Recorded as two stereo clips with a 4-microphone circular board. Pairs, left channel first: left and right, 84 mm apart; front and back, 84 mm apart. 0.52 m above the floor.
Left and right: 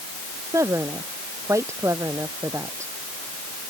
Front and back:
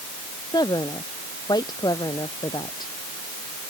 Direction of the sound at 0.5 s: 35° right.